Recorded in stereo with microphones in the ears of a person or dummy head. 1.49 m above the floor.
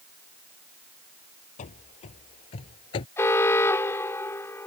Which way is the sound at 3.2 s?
15° left (ahead or behind).